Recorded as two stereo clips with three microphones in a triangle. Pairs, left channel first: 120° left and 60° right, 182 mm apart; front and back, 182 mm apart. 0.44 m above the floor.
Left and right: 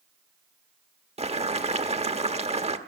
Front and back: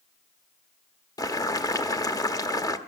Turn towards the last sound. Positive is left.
turn(degrees=-55)